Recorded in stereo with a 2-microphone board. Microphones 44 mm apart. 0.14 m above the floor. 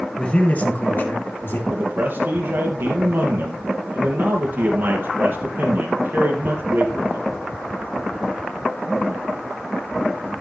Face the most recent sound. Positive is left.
turn(degrees=-55)  # may be behind; listen again after turning